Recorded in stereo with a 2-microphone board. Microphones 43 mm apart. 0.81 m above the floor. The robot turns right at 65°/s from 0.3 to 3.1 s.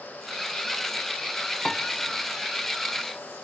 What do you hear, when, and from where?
1.6 s a piano: 10° left (ahead or behind), 0.8 m; by 1.9 s 5° left (ahead or behind), 0.8 m